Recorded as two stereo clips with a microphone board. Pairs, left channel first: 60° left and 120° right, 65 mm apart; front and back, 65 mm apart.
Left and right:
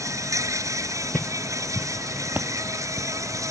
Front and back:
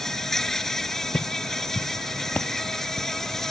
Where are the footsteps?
5° left; by 3.1 s 70° right.